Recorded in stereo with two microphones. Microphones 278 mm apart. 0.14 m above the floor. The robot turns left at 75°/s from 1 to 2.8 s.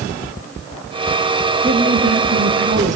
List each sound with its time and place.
1.6 s a woman speaking: 40° right, 2 m; by 3.0 s 130° right, 2 m